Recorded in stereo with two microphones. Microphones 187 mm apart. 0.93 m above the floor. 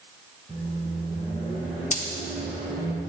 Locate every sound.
0.5 s a microwave: 20° left (ahead or behind), 3.5 m
1.9 s a dropped coin: 40° left (ahead or behind), 0.9 m